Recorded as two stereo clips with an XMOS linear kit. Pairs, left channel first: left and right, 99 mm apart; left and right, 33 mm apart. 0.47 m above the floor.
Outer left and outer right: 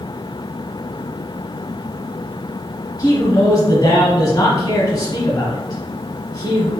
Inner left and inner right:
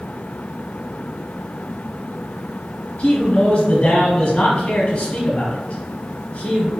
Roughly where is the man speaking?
Left.